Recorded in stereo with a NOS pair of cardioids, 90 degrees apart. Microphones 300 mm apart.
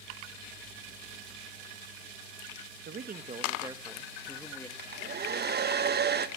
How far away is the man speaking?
About 1.6 m.